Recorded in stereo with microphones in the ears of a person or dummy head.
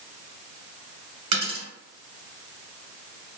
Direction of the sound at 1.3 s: 40° right (ahead or behind).